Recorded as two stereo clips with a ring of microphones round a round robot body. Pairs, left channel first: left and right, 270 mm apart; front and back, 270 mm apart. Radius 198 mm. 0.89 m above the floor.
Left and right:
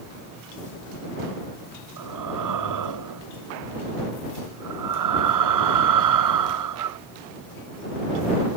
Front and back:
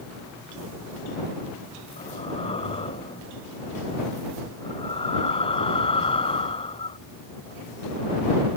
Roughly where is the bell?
No bell in this recording.